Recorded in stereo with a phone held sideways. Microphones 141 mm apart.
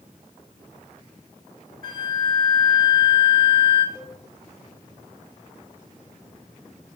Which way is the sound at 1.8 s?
75° right (ahead or behind).